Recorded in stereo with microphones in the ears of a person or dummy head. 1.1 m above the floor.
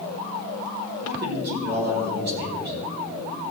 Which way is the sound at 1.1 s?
55° right (ahead or behind).